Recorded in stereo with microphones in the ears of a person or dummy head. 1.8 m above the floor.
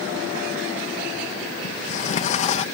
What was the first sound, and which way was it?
A sliding door, 35° left (ahead or behind).